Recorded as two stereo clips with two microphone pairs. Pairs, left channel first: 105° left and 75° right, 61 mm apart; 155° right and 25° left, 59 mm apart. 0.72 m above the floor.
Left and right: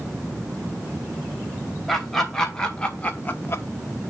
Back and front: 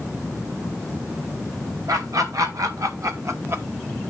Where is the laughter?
20° left, 3 m; by 3.6 s 70° left, 1.0 m.